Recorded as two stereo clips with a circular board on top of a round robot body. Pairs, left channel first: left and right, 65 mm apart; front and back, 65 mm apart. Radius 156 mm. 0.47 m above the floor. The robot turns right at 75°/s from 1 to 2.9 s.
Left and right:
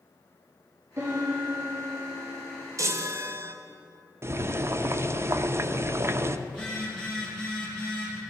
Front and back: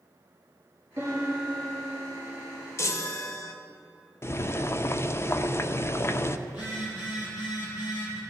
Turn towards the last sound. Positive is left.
turn(degrees=15)